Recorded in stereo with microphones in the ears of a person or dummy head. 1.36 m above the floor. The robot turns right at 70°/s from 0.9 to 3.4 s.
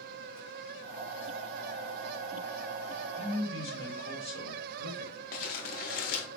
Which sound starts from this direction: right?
A man speaking, at 3.2 s.